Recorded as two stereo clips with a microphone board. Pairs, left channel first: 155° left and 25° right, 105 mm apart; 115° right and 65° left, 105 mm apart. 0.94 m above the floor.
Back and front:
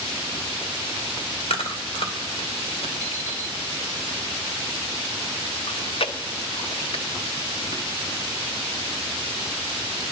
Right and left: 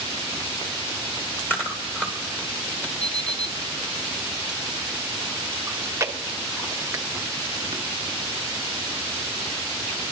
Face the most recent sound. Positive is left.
turn(degrees=130)